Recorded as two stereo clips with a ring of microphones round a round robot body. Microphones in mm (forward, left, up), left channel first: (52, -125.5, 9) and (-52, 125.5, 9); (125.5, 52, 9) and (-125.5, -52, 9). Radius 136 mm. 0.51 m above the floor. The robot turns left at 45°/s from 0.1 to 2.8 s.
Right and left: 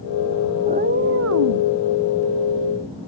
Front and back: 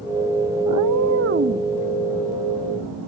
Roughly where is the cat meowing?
Behind.